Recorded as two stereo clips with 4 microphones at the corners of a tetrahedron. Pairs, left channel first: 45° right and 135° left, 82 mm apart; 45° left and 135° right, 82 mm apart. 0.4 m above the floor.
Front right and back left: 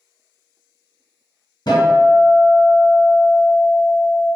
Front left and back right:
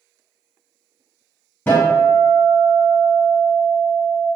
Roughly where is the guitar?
Ahead.